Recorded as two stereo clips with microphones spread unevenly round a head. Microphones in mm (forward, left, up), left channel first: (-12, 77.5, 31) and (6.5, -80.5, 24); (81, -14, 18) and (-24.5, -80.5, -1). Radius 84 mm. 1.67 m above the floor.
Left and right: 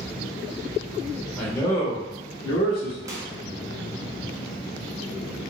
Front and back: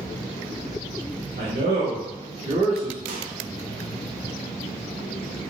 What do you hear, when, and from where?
1.4 s a man speaking: straight behind, 0.8 m; by 3.0 s 125° left, 0.9 m
3.1 s a microwave: 155° right, 0.5 m